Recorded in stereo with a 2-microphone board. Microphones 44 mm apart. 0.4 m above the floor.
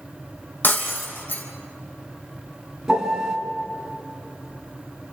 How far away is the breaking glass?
About 3.5 m.